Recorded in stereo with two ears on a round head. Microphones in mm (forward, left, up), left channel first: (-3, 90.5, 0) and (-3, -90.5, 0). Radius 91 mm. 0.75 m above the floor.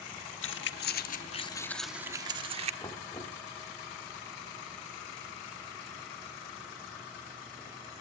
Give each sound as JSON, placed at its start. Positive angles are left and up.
{"t": 0.4, "sound": "keys jangling", "side_deg": 70, "distance_m": 1.3}
{"t": 2.8, "sound": "knocking", "side_deg": 20, "distance_m": 1.8}